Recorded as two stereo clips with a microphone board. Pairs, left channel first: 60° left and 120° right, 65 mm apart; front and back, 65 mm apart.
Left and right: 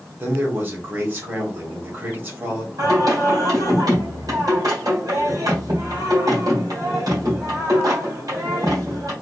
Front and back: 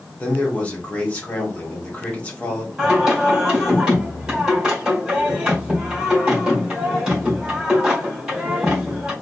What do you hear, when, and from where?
0.2 s a man speaking: 65° right, 1.5 m
2.8 s singing: 100° right, 2 m